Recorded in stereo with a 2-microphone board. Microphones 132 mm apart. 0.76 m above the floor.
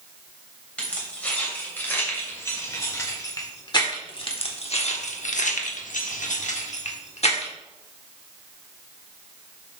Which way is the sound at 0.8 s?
10° left (ahead or behind).